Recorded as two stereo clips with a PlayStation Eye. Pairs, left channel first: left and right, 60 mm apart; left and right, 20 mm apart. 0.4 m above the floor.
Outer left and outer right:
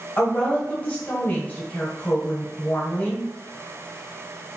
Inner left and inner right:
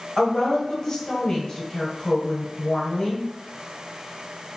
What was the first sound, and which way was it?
A woman speaking, 25° left (ahead or behind).